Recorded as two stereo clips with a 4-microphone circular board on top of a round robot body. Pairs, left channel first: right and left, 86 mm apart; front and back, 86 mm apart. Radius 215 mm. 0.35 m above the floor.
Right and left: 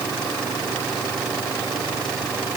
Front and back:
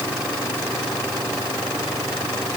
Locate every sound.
Only background noise.